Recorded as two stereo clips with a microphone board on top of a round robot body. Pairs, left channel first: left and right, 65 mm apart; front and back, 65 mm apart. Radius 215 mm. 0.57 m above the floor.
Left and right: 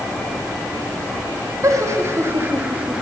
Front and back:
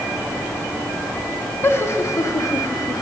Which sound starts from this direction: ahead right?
Laughter, at 1.6 s.